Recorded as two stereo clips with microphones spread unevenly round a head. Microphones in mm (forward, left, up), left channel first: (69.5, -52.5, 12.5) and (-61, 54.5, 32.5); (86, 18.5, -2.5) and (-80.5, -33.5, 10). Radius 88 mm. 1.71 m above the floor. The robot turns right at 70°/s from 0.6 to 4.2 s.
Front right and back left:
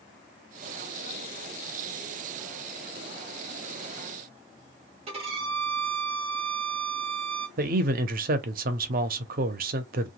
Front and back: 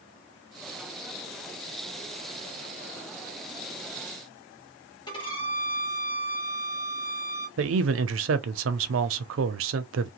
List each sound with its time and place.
5.1 s a violin: 85° left, 1.3 m
7.6 s a man speaking: straight behind, 0.6 m